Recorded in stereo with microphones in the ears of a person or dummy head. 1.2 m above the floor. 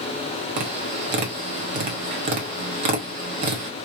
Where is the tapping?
35° right (ahead or behind), 0.8 m.